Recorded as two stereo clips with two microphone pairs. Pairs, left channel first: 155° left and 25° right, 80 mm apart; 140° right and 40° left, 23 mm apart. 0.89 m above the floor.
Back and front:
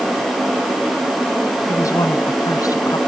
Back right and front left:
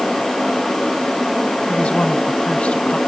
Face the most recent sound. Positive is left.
turn(degrees=-165)